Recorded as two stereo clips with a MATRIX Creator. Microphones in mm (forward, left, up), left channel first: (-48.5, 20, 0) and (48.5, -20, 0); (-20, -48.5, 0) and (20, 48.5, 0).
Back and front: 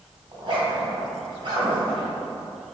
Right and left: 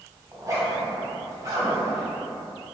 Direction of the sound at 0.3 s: 5° left.